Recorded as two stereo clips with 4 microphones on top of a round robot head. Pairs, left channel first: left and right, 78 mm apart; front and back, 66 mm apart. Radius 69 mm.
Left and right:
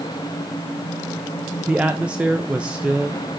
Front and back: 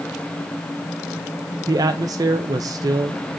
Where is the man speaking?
165° right, 0.6 m.